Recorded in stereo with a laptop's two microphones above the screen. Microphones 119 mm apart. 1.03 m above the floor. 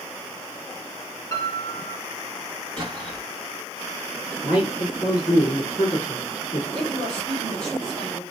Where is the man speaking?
60° left (ahead or behind), 2 m.